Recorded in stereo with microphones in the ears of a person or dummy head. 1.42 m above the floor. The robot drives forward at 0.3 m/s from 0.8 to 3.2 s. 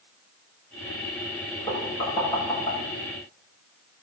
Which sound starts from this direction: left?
Knocking, at 1.7 s.